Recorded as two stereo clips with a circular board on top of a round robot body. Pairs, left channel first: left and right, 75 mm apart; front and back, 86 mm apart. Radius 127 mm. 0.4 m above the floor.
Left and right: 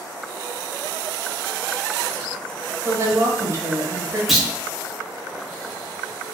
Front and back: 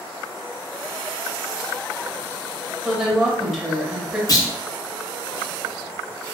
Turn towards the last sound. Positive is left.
turn(degrees=-5)